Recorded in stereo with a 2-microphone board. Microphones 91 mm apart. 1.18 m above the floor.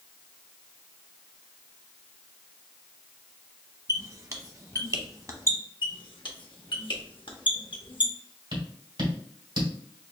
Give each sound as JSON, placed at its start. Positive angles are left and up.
{"t": 3.9, "sound": "a squeak", "side_deg": -40, "distance_m": 0.8}
{"t": 5.8, "sound": "a squeak", "side_deg": 65, "distance_m": 0.9}
{"t": 8.5, "sound": "tapping", "side_deg": -70, "distance_m": 1.9}